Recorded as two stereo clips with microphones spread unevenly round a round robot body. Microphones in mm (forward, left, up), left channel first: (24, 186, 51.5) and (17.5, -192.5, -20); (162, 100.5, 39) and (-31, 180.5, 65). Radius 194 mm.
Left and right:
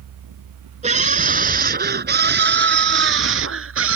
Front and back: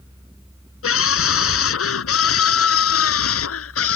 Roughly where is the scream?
Ahead.